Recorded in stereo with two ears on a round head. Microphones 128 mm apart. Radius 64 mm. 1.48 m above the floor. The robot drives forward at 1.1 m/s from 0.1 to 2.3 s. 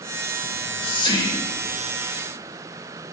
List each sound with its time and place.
0.4 s whispering: 55° left (ahead or behind), 1.0 m; by 1.8 s 20° left (ahead or behind), 2 m